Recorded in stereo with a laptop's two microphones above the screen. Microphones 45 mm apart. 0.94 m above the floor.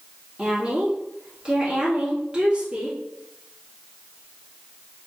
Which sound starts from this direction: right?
A woman speaking, at 0.4 s.